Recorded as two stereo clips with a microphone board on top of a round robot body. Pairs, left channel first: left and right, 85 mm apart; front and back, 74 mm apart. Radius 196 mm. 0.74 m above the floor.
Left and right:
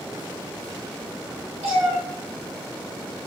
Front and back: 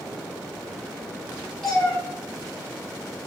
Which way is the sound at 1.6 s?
85° right.